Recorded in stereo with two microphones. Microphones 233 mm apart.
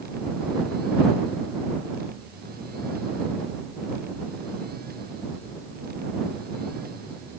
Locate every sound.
Only background noise.